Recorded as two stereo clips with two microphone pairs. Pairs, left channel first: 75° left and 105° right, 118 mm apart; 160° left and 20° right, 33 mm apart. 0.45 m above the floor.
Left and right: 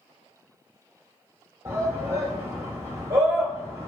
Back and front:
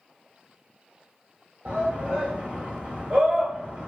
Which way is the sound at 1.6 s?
55° right.